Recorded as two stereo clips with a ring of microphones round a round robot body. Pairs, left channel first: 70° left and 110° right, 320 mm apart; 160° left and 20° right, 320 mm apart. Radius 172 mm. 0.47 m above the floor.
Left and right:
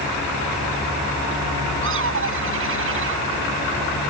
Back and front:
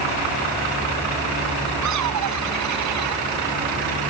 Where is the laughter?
60° right.